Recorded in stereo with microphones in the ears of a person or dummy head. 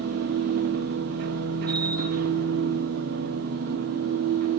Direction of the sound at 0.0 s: 55° right (ahead or behind).